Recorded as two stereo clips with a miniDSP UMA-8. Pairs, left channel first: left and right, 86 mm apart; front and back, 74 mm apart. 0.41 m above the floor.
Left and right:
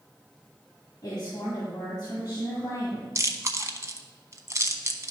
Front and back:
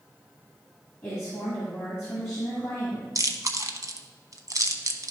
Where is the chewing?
145° right, 0.7 m.